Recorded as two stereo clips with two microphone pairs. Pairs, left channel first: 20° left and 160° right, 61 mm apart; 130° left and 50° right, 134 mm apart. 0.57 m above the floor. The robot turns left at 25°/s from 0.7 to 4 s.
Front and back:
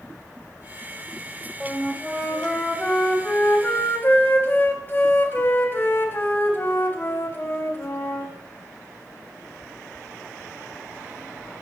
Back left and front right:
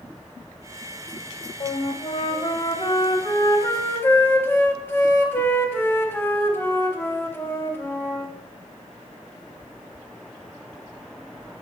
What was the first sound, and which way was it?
A flute, 120° left.